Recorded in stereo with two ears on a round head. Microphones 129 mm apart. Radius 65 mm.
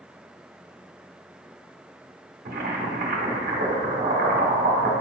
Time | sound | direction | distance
2.5 | boiling | 60° right (ahead or behind) | 1.3 m